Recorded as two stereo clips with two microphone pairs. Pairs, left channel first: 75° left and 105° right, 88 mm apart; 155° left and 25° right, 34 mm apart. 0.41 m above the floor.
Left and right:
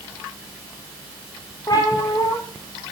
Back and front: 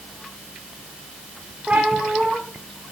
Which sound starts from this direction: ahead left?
A cat meowing, at 1.7 s.